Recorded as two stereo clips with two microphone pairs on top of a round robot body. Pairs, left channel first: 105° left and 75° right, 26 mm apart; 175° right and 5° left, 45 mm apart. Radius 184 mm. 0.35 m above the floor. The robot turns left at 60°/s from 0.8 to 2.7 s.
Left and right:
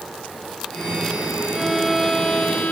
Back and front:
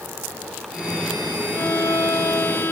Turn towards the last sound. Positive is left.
turn(degrees=140)